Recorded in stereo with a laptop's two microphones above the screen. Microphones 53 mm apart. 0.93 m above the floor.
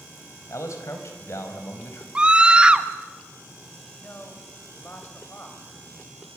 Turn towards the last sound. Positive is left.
turn(degrees=40)  # may be behind; listen again after turning